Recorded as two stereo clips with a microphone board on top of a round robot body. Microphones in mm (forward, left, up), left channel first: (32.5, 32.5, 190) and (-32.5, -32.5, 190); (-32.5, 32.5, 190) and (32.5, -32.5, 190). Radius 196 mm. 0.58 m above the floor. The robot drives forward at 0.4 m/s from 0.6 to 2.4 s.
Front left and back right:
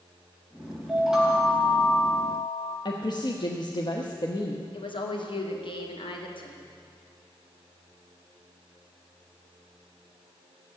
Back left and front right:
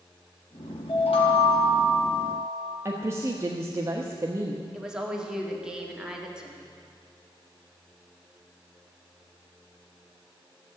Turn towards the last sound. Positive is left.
turn(degrees=35)